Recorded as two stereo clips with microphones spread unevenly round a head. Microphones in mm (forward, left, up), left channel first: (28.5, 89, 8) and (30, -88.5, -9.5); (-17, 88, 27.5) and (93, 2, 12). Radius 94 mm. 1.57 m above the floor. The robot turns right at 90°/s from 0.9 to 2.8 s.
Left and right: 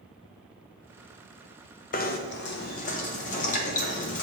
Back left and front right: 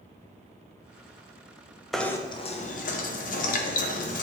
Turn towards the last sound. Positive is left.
turn(degrees=135)